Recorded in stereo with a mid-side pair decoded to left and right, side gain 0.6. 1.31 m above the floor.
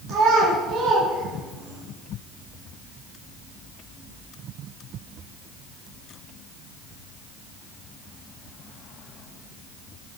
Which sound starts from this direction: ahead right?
A child speaking, at 0.1 s.